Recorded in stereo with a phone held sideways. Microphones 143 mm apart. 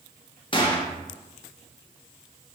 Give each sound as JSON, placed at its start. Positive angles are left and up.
{"t": 0.5, "sound": "a gunshot", "side_deg": 35, "distance_m": 0.6}